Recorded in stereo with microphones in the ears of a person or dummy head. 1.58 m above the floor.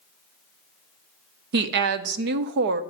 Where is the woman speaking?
60° right (ahead or behind), 0.5 m.